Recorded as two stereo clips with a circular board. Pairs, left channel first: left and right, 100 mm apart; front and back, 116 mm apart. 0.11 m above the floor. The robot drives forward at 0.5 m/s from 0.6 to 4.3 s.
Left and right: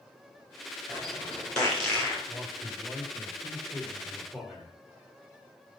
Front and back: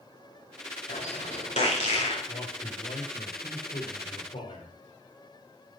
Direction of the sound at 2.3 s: Straight ahead.